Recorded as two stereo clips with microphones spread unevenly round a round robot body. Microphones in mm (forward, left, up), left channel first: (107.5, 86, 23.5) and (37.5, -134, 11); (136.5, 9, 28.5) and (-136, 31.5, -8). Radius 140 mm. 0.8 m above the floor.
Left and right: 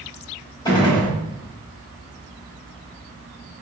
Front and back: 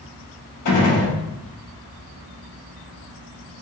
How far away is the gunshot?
About 2 m.